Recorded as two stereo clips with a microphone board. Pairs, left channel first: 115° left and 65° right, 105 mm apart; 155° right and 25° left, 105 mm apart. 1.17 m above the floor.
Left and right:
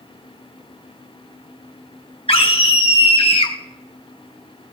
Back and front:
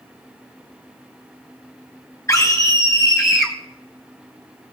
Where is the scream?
135° left, 1.1 m; by 3.5 s 100° left, 0.6 m.